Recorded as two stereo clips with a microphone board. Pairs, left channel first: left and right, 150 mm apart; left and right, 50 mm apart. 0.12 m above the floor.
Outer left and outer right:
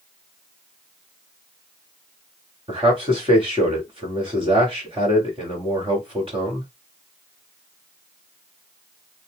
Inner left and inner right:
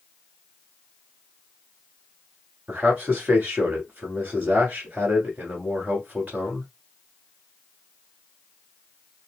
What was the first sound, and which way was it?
A man speaking, 35° right (ahead or behind).